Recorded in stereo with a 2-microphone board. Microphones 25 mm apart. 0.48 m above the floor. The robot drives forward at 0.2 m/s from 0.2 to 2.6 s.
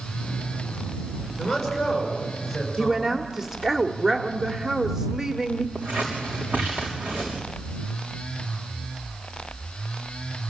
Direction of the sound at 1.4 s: 5° right (ahead or behind).